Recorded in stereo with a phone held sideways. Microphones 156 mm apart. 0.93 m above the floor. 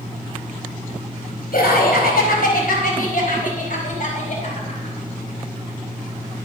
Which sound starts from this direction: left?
Laughter, at 1.5 s.